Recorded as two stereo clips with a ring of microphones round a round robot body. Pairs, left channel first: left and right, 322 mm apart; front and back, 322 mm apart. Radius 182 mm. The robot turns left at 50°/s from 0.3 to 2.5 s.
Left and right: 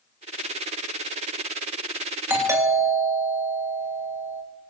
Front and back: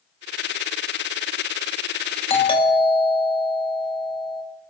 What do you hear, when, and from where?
2.3 s a doorbell: 20° right, 1.8 m; by 4.4 s 30° right, 1.8 m